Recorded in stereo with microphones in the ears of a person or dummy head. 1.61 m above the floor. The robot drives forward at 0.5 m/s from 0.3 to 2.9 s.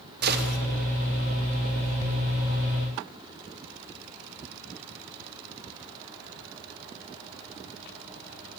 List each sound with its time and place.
0.2 s a gunshot: 55° right (ahead or behind), 2.5 m; by 0.6 s 60° right (ahead or behind), 2.5 m